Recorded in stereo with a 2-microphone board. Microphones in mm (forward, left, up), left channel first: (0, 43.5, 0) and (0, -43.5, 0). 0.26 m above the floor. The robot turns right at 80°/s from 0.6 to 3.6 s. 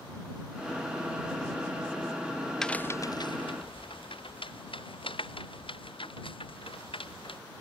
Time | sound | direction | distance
2.6 | a crack | 5° left (ahead or behind) | ?